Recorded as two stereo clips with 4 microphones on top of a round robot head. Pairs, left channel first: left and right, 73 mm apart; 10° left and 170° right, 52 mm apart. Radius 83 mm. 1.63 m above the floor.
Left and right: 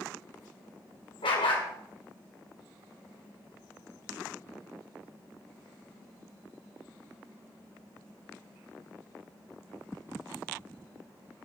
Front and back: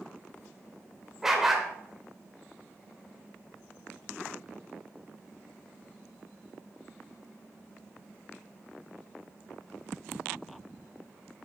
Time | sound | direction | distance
1.2 | a dog barking | 105° left | 3 m